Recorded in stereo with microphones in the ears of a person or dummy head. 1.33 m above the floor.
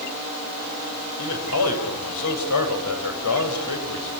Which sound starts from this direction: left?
A man speaking, at 1.2 s.